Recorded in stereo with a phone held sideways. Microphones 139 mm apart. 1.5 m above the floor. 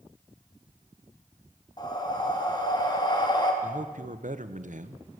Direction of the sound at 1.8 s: 30° left (ahead or behind).